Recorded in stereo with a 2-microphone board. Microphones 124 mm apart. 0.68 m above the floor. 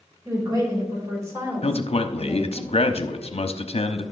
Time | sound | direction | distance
0.2 | a woman speaking | 30° right (ahead or behind) | 3.5 m
1.6 | a man speaking | 55° left (ahead or behind) | 0.8 m